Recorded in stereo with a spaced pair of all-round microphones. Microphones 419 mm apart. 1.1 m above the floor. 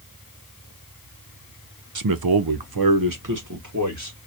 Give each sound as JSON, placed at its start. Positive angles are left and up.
{"t": 1.9, "sound": "a man speaking", "side_deg": -50, "distance_m": 0.5}